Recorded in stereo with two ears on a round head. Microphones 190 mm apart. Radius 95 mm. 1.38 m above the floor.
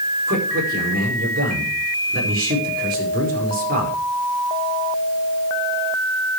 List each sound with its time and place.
0.3 s a man speaking: 45° right (ahead or behind), 5 m